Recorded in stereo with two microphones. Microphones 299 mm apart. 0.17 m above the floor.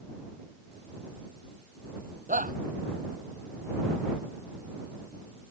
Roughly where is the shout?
Right.